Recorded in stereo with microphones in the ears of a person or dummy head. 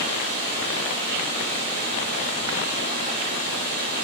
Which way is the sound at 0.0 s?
35° left (ahead or behind).